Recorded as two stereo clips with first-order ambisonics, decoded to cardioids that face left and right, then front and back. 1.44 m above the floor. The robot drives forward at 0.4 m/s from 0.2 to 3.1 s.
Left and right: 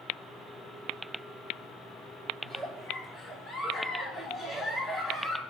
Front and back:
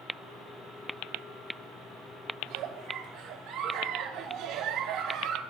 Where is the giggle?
165° right, 2 m.